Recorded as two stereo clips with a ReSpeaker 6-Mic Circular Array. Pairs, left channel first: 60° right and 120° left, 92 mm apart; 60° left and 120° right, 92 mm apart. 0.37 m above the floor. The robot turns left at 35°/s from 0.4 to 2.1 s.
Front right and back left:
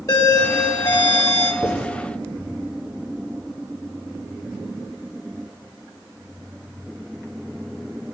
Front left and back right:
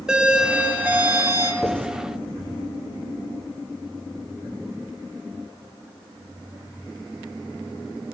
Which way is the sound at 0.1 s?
45° right.